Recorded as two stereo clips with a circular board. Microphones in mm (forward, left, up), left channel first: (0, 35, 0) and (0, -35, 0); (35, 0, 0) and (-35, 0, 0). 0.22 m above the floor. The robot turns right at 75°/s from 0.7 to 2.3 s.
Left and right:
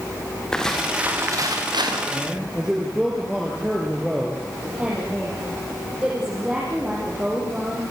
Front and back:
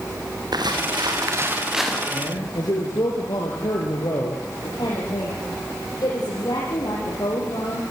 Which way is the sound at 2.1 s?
30° right.